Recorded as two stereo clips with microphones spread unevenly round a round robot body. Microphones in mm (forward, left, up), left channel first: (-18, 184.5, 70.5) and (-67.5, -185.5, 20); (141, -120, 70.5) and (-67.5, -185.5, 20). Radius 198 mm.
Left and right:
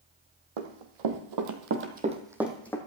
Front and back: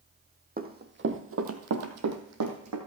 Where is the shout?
I don't hear a shout.